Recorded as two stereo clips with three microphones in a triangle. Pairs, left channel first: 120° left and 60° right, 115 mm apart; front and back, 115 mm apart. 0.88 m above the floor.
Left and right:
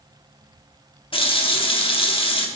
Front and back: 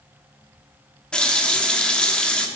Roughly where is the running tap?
Left.